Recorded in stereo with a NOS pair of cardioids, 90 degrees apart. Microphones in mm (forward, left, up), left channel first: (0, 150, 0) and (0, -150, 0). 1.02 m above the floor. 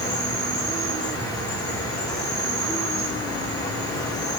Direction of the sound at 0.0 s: 15° left.